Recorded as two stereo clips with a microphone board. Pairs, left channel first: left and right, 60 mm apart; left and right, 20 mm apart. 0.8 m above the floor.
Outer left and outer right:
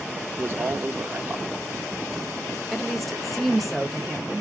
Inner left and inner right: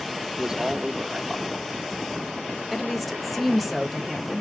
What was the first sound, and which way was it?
A man speaking, 45° right (ahead or behind).